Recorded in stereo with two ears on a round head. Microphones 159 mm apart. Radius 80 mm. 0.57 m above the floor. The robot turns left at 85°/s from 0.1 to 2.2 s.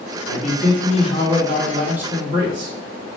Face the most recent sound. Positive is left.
turn(degrees=-35)